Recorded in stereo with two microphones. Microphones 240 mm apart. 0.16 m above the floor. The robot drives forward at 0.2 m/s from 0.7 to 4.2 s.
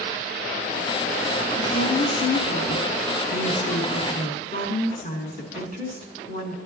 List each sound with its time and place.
1.6 s a woman speaking: 40° left (ahead or behind), 1.7 m